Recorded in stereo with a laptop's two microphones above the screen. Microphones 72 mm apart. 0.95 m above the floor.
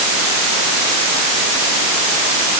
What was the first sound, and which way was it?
Only background noise.